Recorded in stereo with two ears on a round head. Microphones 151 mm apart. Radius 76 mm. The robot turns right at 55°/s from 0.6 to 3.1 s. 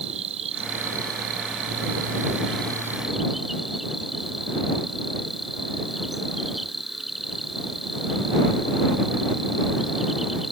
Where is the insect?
140° right; by 10.5 s straight ahead.